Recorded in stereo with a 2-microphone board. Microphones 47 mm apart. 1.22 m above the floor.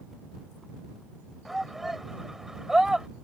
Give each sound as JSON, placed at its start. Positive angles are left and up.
{"t": 1.4, "sound": "a shout", "side_deg": 0}